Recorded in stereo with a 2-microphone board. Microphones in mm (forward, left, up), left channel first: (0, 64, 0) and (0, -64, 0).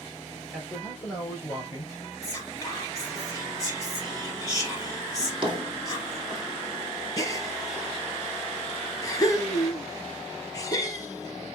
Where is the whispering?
25° left (ahead or behind), 2.5 m.